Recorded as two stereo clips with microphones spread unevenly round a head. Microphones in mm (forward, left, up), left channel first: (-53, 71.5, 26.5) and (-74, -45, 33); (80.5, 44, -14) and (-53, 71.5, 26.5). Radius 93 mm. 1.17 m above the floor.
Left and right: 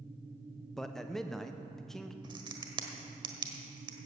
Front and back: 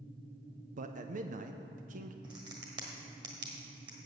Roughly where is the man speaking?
Behind.